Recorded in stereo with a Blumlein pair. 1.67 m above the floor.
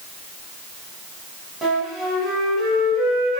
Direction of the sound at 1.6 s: 15° right.